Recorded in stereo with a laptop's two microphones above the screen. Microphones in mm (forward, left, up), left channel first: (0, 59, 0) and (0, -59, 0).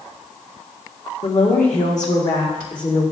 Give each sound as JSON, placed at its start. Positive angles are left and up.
{"t": 1.2, "sound": "a woman speaking", "side_deg": 75, "distance_m": 1.5}